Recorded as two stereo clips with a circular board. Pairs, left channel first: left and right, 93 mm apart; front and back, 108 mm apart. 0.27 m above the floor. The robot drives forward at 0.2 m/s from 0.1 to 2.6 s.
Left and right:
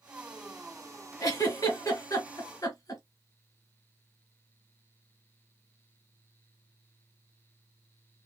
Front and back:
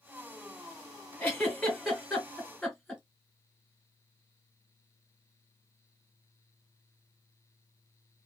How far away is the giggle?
About 1.7 m.